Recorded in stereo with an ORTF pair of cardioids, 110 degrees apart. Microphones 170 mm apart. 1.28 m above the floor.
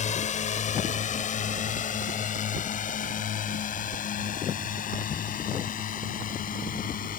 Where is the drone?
45° left; by 7.2 s 55° left.